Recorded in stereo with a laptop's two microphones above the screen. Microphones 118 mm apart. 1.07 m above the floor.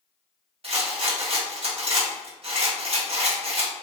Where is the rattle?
55° right (ahead or behind), 1.2 m.